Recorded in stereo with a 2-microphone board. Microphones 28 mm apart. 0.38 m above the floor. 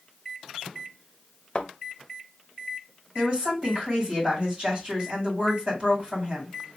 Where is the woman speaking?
35° right (ahead or behind), 2 m.